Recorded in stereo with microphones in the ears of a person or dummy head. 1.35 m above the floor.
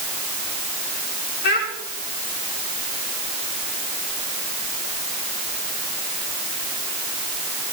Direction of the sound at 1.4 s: 70° left (ahead or behind).